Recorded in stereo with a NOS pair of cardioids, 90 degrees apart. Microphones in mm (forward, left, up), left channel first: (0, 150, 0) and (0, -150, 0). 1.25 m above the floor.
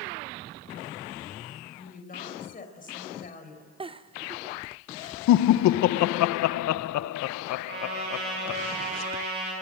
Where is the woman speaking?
30° left, 5 m.